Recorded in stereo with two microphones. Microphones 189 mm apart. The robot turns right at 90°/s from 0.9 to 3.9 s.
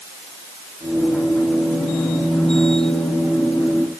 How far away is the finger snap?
I don't hear a finger snap.